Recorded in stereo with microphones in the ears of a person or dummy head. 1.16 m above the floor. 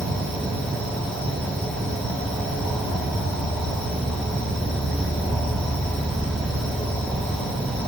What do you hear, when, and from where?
0.0 s an insect: 5° left (ahead or behind), 1.5 m